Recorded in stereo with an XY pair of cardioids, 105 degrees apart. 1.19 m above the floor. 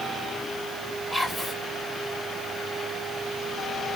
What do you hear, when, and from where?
1.1 s whispering: 10° left, 0.7 m